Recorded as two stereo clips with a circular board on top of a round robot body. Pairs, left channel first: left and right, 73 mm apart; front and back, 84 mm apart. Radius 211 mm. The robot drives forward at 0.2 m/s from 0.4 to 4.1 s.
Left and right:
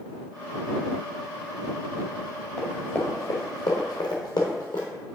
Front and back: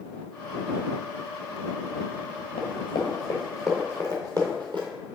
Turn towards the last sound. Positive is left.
turn(degrees=140)